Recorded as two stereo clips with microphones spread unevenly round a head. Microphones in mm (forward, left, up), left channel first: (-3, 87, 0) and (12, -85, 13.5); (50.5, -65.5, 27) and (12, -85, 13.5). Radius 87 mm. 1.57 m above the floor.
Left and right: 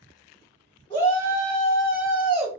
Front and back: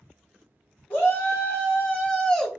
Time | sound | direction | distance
0.9 | a shout | 30° left | 1.2 m